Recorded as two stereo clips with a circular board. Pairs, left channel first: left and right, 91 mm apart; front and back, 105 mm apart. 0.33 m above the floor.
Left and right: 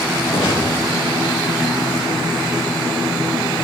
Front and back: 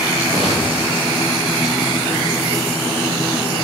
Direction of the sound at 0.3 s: 105° left.